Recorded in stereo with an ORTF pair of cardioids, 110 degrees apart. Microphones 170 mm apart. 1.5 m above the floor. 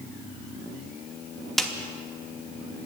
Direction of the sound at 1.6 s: Straight ahead.